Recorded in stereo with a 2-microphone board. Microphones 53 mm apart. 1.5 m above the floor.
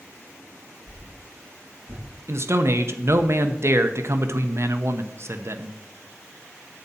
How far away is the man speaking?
About 0.9 m.